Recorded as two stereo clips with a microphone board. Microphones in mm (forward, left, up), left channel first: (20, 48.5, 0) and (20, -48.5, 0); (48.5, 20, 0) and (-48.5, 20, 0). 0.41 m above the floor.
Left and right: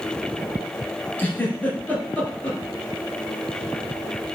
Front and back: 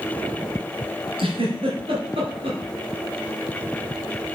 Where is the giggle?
165° left, 2.5 m.